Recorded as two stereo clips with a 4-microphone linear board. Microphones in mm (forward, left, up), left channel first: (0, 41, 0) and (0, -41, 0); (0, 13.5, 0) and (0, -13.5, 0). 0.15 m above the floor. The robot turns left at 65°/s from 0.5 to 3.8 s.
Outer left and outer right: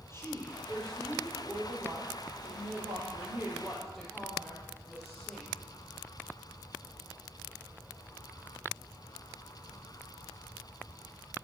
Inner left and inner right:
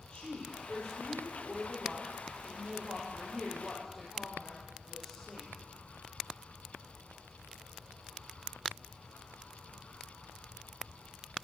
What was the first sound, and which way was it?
A woman speaking, 30° left.